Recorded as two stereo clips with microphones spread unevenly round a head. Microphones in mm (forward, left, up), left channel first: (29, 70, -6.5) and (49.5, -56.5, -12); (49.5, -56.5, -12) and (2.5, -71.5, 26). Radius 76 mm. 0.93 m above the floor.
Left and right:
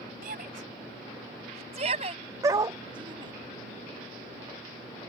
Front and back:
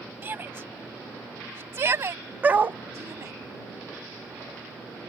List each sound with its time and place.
0.2 s a shout: 120° right; by 3.3 s 145° right
2.4 s a dog barking: 150° right